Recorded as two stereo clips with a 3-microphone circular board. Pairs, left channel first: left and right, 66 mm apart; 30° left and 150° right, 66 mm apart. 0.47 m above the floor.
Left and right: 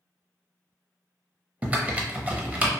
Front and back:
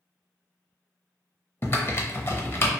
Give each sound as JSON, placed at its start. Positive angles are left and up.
{"t": 1.6, "sound": "typing on a keyboard", "azimuth_deg": -20, "distance_m": 0.5}